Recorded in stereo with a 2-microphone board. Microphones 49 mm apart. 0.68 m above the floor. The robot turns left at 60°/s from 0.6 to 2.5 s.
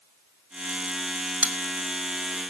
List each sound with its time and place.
1.4 s a bell: 25° right (ahead or behind), 2.5 m; by 1.6 s 35° right (ahead or behind), 2.5 m